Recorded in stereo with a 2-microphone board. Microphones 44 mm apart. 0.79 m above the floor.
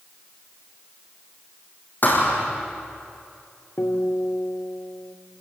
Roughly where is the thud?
Left.